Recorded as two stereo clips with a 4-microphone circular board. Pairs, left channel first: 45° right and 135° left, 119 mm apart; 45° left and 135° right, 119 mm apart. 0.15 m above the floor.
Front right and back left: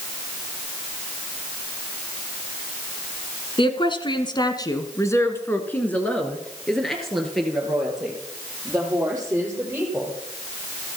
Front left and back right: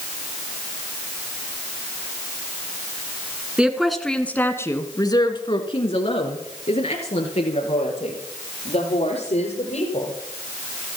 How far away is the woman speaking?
About 1.6 m.